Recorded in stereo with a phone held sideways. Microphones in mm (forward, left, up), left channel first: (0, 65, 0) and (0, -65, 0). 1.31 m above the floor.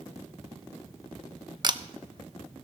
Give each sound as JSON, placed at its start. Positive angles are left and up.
{"t": 1.6, "sound": "a camera shutter", "side_deg": -35, "distance_m": 0.6}